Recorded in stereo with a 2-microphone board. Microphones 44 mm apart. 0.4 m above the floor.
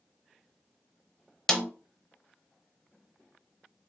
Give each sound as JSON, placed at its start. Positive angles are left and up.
{"t": 1.5, "sound": "a snare drum", "side_deg": 15, "distance_m": 0.6}